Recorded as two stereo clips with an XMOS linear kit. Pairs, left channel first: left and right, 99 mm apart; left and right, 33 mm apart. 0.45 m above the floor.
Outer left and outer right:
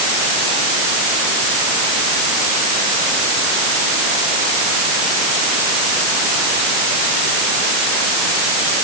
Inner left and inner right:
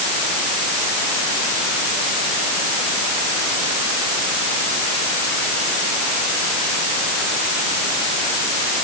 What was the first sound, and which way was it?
Only background noise.